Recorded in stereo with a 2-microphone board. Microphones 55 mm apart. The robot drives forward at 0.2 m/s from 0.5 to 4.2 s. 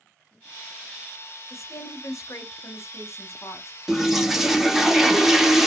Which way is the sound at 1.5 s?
65° left (ahead or behind).